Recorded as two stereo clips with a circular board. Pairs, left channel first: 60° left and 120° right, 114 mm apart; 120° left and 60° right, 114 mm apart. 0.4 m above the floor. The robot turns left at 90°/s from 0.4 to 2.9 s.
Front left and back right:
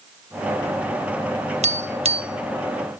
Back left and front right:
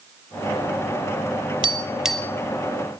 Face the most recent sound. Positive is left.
turn(degrees=140)